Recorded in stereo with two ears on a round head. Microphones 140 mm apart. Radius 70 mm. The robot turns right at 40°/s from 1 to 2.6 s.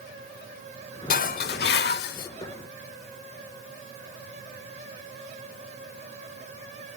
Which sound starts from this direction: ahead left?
Dishes clattering, at 1.1 s.